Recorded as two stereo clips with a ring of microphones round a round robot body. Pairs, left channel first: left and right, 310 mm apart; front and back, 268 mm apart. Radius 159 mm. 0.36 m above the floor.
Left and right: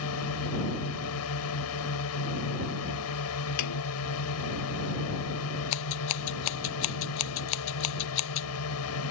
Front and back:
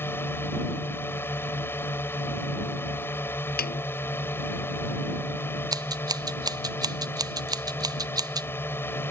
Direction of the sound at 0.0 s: 80° left.